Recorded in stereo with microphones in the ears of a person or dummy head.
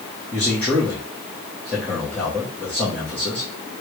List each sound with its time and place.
0.3 s a man speaking: 10° left (ahead or behind), 1.2 m